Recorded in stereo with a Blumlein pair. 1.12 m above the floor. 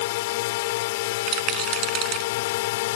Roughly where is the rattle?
Ahead right.